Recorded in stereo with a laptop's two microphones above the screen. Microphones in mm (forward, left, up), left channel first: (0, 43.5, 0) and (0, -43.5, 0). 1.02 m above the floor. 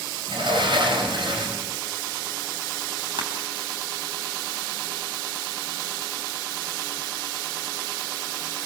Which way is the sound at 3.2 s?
70° right (ahead or behind).